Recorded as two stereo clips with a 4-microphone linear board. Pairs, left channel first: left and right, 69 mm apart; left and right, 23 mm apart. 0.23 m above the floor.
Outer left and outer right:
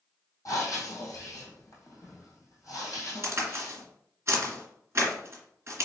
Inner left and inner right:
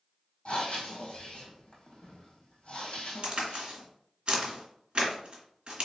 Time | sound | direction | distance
0.5 | breathing | 55° left (ahead or behind) | 2 m
3.2 | a crack | 40° right (ahead or behind) | 1.6 m